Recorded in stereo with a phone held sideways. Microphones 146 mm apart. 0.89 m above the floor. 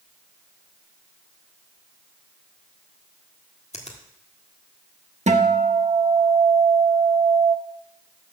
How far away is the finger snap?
About 1.5 m.